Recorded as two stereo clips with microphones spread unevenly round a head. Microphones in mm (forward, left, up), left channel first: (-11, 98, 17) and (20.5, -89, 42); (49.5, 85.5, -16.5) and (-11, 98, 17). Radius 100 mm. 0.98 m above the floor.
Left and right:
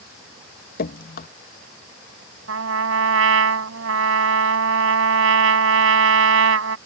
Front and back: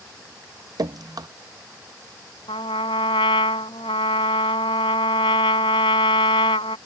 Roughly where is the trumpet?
Ahead right.